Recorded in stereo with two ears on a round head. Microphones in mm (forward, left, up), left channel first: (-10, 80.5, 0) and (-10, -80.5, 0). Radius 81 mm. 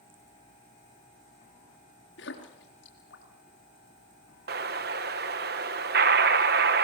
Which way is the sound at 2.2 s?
70° left (ahead or behind).